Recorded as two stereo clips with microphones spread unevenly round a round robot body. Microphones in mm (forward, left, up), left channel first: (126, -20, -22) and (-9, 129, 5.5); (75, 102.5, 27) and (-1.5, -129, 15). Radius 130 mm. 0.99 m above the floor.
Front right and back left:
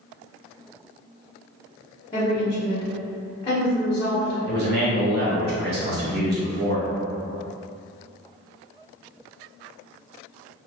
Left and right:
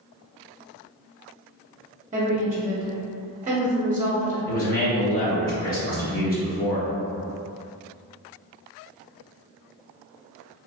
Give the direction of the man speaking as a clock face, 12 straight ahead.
8 o'clock.